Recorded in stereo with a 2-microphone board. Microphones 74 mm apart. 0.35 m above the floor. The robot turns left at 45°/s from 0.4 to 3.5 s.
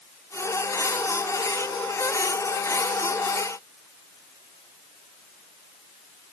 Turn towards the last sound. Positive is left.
No sound to turn to.